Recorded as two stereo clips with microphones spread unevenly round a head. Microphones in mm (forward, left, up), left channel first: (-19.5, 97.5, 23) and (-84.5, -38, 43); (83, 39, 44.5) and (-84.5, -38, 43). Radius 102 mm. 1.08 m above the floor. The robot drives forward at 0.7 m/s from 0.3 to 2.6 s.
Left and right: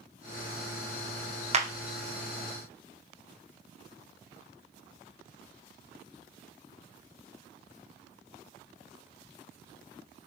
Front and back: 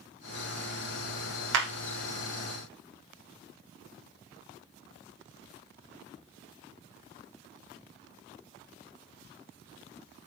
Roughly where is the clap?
Behind.